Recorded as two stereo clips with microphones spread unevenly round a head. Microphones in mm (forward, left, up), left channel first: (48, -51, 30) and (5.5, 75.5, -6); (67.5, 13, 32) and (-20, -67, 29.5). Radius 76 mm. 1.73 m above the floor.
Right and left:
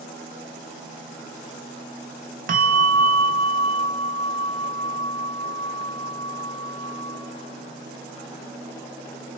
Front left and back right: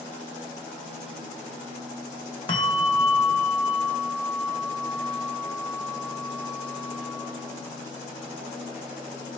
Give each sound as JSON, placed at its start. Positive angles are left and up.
{"t": 2.5, "sound": "a bell", "azimuth_deg": 90, "distance_m": 1.0}